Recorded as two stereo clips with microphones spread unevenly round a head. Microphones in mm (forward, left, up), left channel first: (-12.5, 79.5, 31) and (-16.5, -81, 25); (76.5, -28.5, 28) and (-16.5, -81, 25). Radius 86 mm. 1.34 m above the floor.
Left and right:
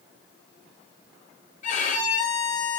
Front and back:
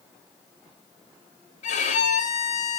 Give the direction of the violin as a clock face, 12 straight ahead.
10 o'clock.